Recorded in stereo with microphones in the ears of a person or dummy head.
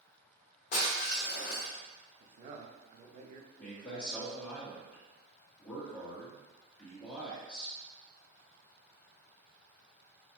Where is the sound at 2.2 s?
40° right (ahead or behind), 0.5 m.